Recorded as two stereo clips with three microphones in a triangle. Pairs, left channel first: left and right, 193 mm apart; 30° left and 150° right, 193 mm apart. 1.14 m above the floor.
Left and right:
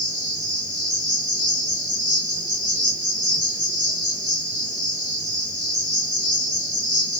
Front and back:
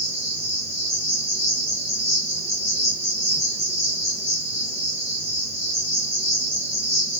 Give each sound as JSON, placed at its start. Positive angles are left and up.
{"t": 0.0, "sound": "an insect", "azimuth_deg": -75, "distance_m": 3.5}